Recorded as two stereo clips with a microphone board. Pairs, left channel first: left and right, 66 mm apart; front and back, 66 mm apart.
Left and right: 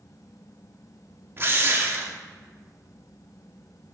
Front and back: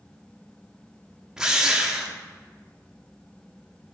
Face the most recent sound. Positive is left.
turn(degrees=-105)